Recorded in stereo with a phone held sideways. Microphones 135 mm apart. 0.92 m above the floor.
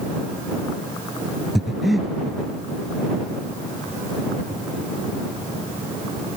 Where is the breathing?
Centre (ahead or behind).